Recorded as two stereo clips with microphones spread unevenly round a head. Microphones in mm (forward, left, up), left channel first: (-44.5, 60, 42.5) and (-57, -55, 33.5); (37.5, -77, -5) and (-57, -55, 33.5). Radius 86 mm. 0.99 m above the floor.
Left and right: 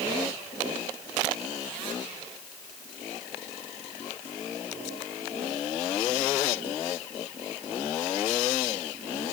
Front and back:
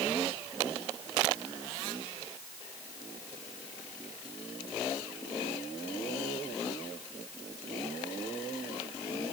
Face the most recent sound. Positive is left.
No sound to turn to.